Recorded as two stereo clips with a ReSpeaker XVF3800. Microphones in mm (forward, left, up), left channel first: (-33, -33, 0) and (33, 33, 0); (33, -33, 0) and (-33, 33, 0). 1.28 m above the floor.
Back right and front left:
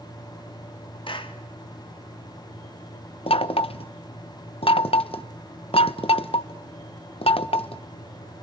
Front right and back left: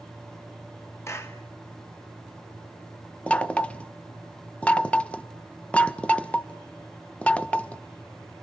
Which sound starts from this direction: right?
A clap, at 1.1 s.